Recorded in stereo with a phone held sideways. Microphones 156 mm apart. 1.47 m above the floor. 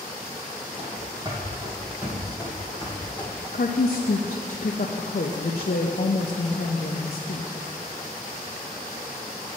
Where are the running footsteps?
40° right (ahead or behind), 2 m; by 3.3 s 15° left (ahead or behind), 2 m.